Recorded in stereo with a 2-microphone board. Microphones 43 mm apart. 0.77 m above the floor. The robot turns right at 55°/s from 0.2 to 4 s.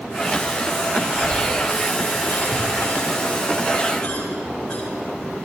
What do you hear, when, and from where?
1.1 s a cough: 5° left (ahead or behind), 7.5 m; by 4.8 s 15° left (ahead or behind), 7.5 m